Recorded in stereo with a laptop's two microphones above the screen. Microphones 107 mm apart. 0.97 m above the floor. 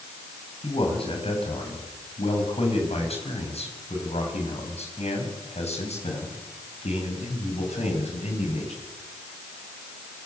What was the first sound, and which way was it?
A man speaking, 60° left (ahead or behind).